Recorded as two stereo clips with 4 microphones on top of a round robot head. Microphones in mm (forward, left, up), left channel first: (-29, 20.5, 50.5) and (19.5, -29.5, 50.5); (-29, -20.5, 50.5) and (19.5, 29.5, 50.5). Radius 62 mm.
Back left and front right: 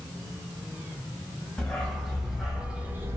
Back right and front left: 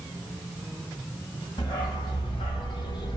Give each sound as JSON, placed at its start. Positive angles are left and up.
{"t": 1.6, "sound": "a dog barking", "azimuth_deg": -150, "distance_m": 1.3}